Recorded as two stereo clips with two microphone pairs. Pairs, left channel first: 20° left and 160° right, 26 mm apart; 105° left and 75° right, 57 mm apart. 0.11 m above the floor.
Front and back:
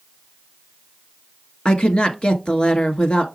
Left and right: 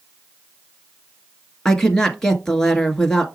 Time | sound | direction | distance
1.6 | a woman speaking | 30° left | 1.4 m